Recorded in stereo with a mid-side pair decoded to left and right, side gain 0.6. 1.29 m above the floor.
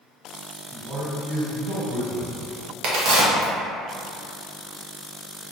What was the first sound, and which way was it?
A man speaking, 35° right.